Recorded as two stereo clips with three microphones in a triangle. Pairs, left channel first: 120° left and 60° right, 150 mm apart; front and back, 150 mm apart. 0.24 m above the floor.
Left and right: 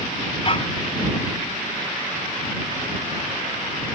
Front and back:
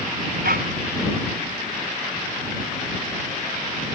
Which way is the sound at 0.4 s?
170° left.